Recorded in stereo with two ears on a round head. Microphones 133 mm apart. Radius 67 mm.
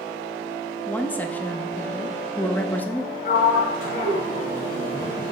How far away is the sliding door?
About 1.9 m.